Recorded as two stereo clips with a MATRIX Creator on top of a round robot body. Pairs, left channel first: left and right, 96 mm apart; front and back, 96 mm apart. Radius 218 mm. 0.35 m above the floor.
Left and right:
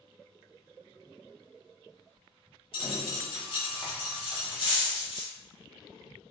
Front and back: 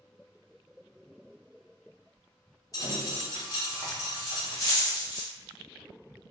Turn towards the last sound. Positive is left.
turn(degrees=55)